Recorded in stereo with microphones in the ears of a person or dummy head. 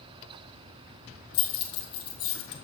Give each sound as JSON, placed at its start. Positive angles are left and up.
{"t": 1.3, "sound": "keys jangling", "side_deg": 30, "distance_m": 1.3}